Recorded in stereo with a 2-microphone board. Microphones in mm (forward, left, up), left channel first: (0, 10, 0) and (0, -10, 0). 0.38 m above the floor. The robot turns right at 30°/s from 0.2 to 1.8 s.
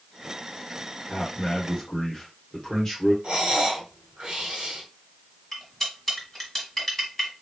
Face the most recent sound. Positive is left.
turn(degrees=5)  # may be behind; listen again after turning